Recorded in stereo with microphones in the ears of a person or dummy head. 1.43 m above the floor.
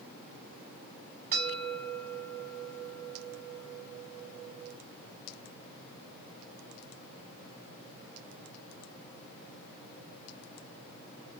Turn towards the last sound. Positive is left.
turn(degrees=-50)  # may be behind; listen again after turning